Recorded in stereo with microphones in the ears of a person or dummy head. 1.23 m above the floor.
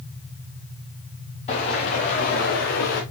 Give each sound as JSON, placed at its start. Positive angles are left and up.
{"t": 1.5, "sound": "footsteps", "side_deg": 30, "distance_m": 4.0}